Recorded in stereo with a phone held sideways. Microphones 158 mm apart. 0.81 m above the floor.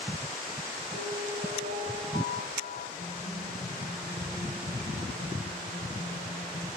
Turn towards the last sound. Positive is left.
turn(degrees=70)  # may be behind; listen again after turning